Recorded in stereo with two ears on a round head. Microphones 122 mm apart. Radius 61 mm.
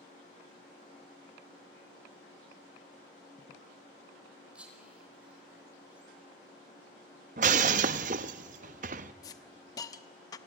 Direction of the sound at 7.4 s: 60° right (ahead or behind).